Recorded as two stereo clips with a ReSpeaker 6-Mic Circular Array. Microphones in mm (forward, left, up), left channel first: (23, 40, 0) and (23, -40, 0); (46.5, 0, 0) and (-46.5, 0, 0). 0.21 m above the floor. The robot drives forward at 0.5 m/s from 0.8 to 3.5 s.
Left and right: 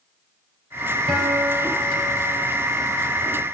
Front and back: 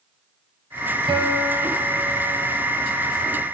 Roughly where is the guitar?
Behind.